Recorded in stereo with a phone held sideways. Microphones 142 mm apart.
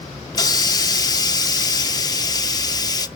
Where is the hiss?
25° left (ahead or behind), 0.5 m.